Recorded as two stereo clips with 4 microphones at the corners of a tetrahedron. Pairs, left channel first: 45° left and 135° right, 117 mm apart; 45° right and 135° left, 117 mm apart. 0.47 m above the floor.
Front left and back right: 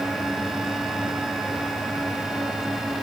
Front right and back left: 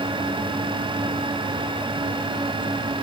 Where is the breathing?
I don't hear breathing.